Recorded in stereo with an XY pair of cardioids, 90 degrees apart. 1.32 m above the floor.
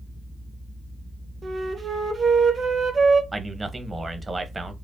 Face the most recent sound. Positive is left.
turn(degrees=-25)